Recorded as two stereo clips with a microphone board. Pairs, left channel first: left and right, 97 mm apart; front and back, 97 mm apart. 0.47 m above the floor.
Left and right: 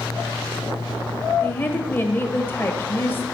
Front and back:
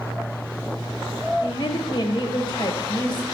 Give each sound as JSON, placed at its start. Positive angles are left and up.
{"t": 1.4, "sound": "a woman speaking", "azimuth_deg": 25, "distance_m": 1.7}